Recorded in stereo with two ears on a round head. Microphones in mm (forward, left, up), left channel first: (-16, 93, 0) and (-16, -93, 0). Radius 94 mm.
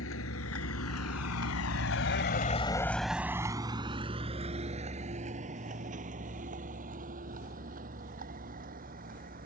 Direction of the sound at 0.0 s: 70° left (ahead or behind).